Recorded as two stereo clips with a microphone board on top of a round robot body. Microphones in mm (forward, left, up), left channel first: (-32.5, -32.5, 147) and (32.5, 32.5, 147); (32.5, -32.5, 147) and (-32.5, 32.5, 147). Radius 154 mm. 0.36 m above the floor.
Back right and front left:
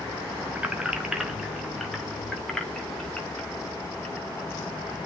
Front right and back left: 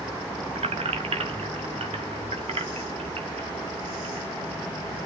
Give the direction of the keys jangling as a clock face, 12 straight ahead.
8 o'clock.